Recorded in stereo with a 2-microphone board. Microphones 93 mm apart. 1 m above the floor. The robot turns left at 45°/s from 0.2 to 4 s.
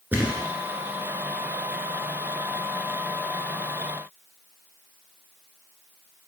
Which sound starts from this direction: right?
A thud, at 0.1 s.